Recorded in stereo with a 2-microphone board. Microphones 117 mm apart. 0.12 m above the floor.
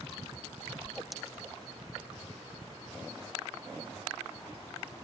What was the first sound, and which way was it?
A whoosh, centre (ahead or behind).